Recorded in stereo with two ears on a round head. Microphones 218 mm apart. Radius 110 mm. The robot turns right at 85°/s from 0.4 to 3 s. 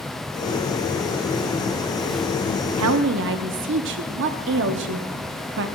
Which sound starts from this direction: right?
A woman speaking, at 2.8 s.